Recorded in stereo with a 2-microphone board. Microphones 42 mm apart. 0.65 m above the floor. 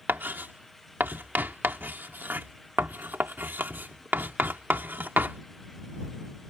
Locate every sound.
0.1 s writing: 55° right (ahead or behind)